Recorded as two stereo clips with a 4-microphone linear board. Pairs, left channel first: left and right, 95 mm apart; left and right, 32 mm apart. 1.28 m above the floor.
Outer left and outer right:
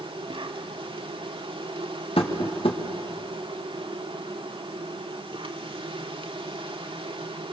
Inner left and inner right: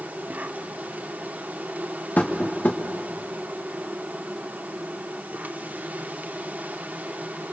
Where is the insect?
70° right (ahead or behind), 1.6 m.